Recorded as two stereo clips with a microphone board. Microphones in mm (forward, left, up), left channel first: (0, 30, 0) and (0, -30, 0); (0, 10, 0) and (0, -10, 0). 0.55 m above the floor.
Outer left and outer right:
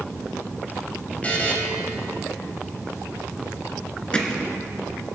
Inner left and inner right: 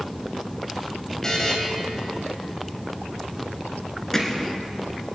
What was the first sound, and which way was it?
A buzzer, 25° left (ahead or behind).